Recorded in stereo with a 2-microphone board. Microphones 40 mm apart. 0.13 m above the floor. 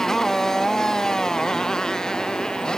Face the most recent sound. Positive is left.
turn(degrees=20)  # may be behind; listen again after turning